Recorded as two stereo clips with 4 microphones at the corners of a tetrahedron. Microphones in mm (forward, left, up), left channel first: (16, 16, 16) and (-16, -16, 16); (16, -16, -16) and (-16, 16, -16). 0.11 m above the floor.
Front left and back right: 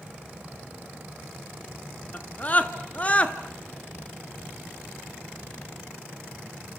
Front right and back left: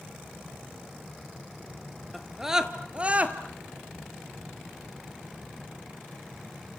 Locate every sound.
2.1 s a scream: 45° left, 1.4 m; by 3.4 s 95° left, 1.8 m